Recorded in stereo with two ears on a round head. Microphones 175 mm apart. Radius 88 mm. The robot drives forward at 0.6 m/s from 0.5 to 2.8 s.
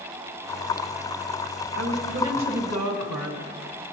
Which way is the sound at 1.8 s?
60° right (ahead or behind).